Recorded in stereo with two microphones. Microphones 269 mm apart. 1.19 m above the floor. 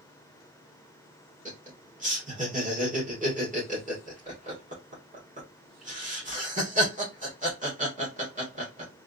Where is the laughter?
25° right (ahead or behind), 1.7 m.